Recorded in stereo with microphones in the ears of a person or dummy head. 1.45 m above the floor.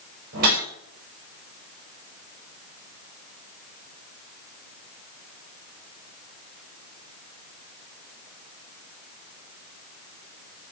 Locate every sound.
0.3 s a whoosh: 50° right (ahead or behind), 6 m